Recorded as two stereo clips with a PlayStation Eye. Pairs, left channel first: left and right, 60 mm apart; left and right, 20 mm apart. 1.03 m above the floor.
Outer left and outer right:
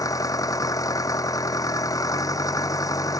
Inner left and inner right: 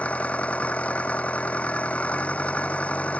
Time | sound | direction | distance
0.0 | an engine running | 80° left | ?